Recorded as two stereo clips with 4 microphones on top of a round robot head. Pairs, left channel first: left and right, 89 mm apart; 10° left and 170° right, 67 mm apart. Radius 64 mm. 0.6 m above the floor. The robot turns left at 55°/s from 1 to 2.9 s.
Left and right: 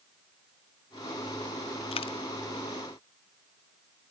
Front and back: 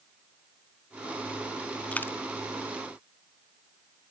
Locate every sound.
1.9 s a dropped coin: 75° left, 1.3 m; by 2.1 s 65° left, 1.3 m